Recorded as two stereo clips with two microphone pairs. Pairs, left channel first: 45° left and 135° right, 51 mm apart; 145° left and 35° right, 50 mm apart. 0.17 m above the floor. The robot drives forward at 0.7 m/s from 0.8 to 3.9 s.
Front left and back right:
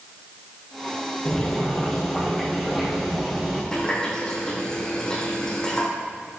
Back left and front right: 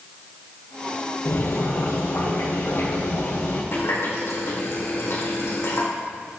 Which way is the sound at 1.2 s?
120° left.